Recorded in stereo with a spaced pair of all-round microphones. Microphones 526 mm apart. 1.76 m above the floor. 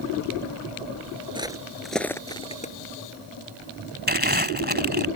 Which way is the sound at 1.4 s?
10° right (ahead or behind).